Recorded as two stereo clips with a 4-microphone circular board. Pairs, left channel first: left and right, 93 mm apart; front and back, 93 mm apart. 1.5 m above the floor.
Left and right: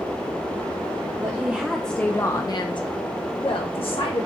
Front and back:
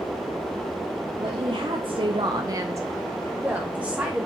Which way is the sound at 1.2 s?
150° right.